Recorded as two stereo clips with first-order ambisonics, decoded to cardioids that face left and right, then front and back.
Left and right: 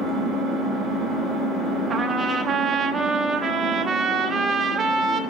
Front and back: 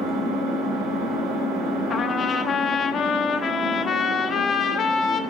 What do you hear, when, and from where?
0.0 s an engine running: 155° left, 3.5 m
1.9 s a trumpet: 30° right, 0.8 m